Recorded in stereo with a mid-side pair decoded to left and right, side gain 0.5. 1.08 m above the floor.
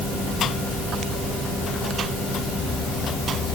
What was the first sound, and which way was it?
Only background noise.